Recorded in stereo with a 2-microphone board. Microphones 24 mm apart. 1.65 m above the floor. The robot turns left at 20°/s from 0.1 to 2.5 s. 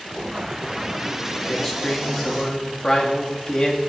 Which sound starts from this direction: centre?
A man speaking, at 1.5 s.